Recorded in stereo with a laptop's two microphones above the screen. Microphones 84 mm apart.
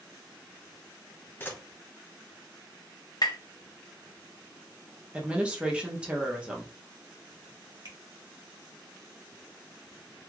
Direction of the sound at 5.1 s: 15° right (ahead or behind).